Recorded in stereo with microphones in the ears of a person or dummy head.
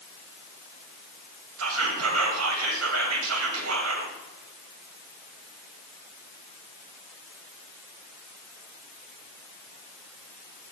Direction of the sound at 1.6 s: 85° right.